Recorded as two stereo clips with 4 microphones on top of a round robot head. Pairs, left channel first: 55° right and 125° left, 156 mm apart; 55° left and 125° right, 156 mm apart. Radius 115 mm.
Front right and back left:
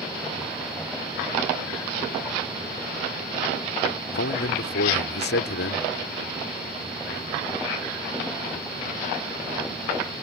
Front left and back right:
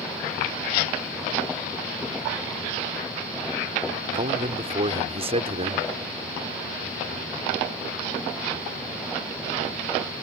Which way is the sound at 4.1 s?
70° right.